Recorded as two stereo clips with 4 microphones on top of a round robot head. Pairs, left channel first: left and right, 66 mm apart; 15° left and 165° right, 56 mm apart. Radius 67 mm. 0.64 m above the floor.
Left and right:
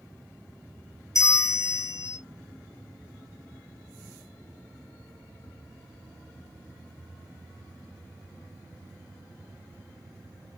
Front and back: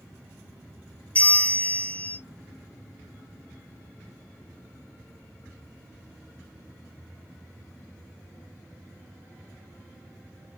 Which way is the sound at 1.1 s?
75° left.